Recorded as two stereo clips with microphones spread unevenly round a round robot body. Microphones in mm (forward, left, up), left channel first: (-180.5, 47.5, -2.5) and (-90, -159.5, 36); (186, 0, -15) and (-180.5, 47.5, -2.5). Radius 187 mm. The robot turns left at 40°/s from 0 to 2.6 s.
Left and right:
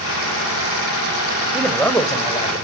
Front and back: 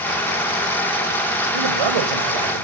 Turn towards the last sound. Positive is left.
turn(degrees=165)